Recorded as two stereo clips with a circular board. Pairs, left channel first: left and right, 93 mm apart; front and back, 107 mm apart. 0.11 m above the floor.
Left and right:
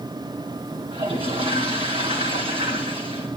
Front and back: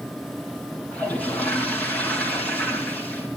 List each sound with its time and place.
0.9 s a toilet flushing: 75° right, 4 m